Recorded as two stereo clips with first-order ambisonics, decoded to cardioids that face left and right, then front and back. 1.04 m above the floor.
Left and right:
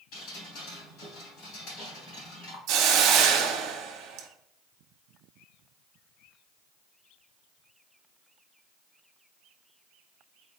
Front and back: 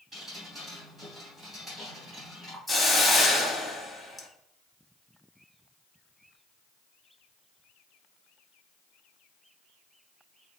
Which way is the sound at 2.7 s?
85° right.